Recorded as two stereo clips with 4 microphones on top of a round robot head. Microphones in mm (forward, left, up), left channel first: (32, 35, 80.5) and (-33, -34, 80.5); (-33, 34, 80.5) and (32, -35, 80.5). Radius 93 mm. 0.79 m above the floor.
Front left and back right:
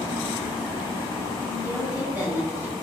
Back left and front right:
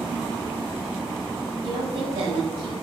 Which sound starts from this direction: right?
A woman speaking, at 1.6 s.